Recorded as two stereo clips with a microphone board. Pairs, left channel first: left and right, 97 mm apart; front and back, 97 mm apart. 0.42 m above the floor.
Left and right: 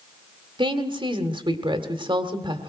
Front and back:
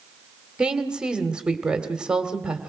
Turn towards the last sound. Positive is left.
turn(degrees=-100)